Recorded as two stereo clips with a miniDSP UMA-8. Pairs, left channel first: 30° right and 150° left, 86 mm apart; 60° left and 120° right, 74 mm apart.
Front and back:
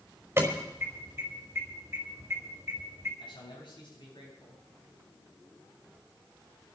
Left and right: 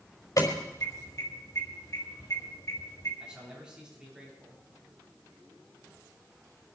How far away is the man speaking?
About 8 m.